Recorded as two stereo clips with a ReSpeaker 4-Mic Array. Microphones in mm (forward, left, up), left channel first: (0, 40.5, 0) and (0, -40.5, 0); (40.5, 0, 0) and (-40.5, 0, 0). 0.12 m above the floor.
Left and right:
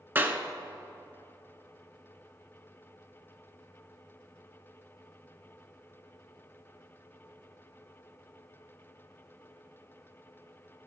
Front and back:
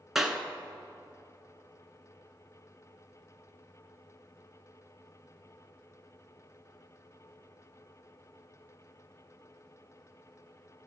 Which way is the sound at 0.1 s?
100° right.